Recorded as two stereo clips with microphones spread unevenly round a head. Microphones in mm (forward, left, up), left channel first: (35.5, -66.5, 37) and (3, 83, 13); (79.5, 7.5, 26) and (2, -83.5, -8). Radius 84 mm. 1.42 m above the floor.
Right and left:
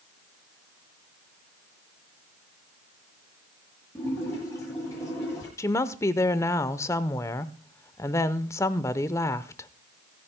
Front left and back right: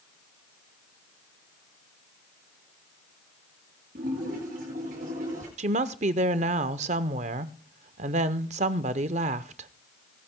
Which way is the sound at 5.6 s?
155° right.